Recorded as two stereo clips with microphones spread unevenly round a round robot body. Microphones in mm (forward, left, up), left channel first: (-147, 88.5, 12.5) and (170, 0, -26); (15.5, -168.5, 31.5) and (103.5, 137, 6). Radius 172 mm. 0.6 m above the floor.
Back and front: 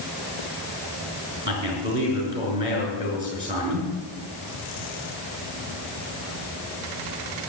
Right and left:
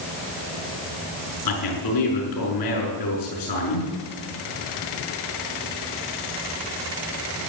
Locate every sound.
1.4 s a man speaking: 95° right, 6.5 m